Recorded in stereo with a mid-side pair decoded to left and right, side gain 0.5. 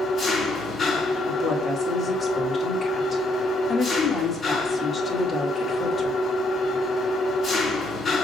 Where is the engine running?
40° left, 4 m.